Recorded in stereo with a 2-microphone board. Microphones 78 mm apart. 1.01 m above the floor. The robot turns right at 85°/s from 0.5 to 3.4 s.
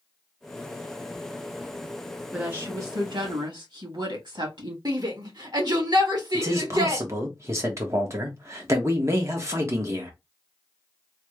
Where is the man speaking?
35° right (ahead or behind), 1.1 m.